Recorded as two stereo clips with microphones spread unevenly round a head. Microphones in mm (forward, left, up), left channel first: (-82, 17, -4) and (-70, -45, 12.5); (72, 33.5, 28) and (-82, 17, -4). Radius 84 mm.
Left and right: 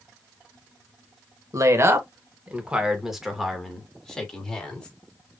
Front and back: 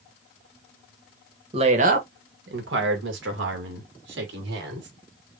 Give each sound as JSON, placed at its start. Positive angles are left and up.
{"t": 1.5, "sound": "a woman speaking", "azimuth_deg": -115, "distance_m": 1.6}